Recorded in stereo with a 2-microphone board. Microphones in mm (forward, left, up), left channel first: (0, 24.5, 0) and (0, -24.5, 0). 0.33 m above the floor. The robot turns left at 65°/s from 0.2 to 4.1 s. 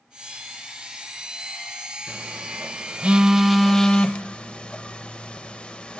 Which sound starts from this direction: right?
A phone buzzing, at 2.1 s.